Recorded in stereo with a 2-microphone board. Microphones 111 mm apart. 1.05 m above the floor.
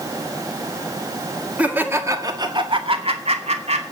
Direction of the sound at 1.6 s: 10° right (ahead or behind).